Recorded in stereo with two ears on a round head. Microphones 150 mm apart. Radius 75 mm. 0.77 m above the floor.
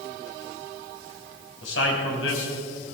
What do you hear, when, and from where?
1.6 s a man speaking: 85° left, 4.5 m